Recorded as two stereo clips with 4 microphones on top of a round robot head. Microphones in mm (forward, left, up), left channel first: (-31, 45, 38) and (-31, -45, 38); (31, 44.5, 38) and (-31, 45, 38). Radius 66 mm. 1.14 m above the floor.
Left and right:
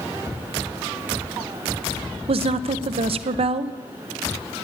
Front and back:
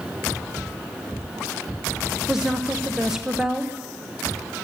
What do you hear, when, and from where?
2.3 s a woman speaking: 100° right, 0.7 m